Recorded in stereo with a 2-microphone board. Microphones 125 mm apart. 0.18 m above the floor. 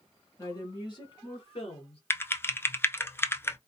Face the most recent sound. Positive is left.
turn(degrees=20)  # may be behind; listen again after turning